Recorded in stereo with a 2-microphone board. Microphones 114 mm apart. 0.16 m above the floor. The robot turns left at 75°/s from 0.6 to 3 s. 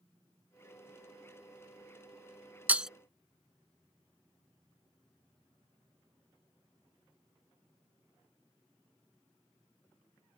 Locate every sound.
2.7 s breaking glass: 15° right (ahead or behind); by 2.9 s 5° right (ahead or behind)